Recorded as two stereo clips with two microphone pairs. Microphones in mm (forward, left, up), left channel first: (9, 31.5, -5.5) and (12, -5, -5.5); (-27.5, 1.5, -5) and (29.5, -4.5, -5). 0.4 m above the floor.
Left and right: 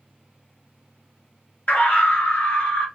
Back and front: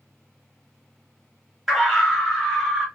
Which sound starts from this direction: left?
A scream, at 1.7 s.